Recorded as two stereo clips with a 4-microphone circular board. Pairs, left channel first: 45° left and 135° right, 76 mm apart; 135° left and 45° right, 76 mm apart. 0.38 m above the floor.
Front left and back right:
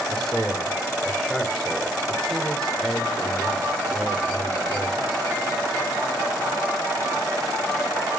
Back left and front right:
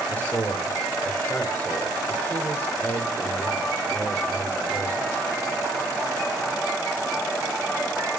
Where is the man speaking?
120° left, 1.4 m.